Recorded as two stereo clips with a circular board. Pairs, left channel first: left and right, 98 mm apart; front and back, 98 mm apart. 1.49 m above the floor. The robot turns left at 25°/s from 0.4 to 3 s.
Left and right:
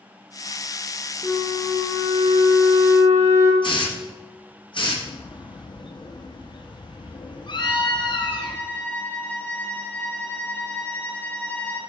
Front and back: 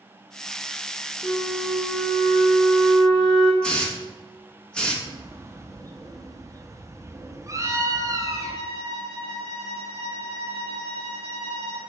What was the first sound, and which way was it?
A flute, 30° right.